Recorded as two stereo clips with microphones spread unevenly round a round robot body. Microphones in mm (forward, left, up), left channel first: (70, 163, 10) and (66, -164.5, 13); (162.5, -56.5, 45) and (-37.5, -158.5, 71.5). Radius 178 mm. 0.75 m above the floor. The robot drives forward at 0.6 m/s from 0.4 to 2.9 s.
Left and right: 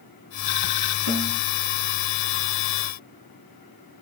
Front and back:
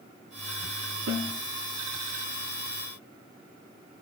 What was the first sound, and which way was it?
A snare drum, 130° right.